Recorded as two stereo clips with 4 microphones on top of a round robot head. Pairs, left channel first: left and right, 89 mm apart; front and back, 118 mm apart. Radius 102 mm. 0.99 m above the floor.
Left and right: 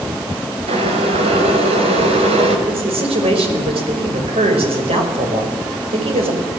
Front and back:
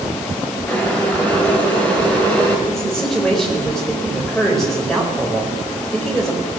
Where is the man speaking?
90° right, 5 m.